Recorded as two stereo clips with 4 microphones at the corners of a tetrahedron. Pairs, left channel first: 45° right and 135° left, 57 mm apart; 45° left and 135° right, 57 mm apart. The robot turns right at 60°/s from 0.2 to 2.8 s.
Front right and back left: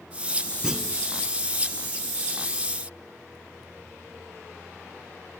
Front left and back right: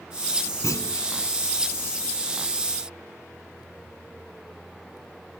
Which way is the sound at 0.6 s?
55° left.